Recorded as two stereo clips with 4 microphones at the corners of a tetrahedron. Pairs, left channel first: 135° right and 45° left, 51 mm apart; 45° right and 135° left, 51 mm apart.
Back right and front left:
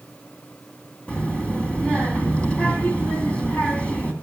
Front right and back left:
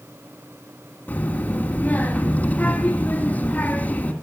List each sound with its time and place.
1.1 s a child speaking: 85° right, 1.3 m